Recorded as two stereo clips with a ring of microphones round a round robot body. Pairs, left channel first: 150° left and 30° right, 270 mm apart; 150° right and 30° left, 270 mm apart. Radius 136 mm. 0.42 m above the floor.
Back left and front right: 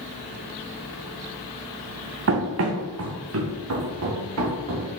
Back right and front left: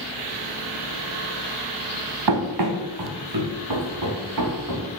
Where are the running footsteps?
15° left, 2.0 m; by 4.9 s 10° left, 4.5 m.